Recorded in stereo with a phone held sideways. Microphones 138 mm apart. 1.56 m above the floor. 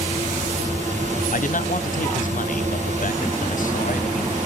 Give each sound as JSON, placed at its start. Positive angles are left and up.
{"t": 0.0, "sound": "a fan", "side_deg": -60, "distance_m": 1.9}
{"t": 1.3, "sound": "a man speaking", "side_deg": 75, "distance_m": 0.7}